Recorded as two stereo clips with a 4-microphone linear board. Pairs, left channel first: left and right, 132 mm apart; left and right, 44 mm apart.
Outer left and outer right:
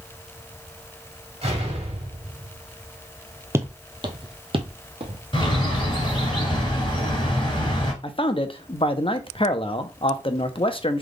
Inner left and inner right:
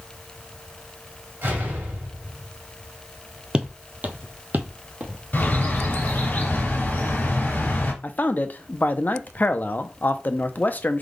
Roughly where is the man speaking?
Left.